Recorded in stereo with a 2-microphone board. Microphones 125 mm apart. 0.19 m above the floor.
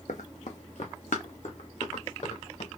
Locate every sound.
0.1 s running footsteps: 75° left (ahead or behind), 0.7 m; by 2.7 s 60° left (ahead or behind), 2 m